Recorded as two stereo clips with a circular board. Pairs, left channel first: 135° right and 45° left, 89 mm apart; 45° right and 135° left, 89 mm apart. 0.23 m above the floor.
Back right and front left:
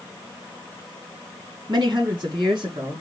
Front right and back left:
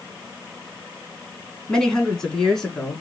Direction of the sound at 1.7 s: 35° left.